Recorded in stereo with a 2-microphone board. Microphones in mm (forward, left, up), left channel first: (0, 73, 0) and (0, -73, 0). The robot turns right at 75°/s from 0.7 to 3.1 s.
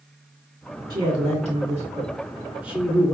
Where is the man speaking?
140° right, 2.5 m; by 3.1 s 25° left, 2.5 m.